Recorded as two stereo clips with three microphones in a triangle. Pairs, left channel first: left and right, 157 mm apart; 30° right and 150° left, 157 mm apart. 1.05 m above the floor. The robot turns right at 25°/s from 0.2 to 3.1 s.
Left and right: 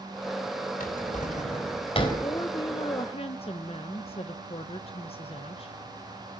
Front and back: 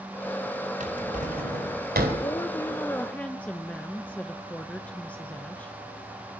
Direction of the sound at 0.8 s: 115° left.